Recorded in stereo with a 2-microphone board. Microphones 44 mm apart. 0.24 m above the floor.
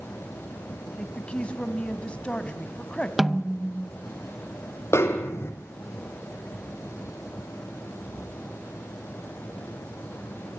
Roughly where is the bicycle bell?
I don't hear a bicycle bell.